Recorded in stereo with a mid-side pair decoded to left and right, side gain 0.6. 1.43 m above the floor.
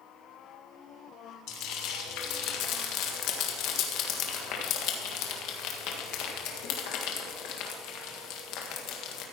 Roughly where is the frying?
Ahead left.